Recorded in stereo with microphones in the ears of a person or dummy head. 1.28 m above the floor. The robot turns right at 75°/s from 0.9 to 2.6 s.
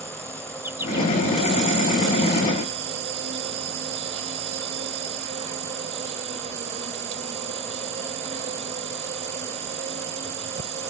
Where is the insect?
170° right; by 10.9 s 40° right.